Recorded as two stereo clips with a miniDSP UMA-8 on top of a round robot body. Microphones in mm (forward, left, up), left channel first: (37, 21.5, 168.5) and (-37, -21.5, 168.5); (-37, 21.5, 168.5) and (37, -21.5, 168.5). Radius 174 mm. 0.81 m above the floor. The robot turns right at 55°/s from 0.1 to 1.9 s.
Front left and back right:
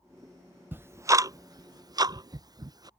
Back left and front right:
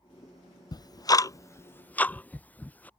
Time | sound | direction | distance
0.7 | ticking | 150° left | ?